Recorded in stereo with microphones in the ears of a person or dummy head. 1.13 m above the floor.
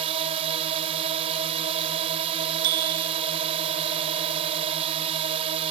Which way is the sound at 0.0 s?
30° right (ahead or behind).